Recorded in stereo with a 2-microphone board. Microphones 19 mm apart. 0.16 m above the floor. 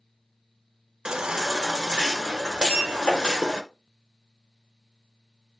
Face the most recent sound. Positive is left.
turn(degrees=80)